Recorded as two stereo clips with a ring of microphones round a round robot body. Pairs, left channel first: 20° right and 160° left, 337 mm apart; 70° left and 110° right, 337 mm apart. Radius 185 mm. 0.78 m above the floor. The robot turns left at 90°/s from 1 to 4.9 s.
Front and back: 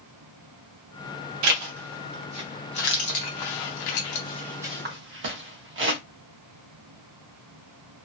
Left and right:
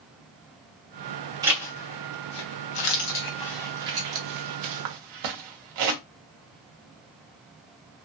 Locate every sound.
1.4 s a zipper: 170° left, 0.7 m; by 6.0 s 145° right, 0.7 m